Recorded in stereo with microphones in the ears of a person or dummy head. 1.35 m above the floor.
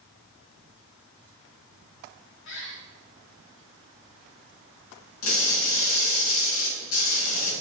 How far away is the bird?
About 1.8 m.